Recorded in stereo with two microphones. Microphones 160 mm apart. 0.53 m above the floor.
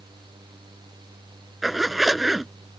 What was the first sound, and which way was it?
A zipper, centre (ahead or behind).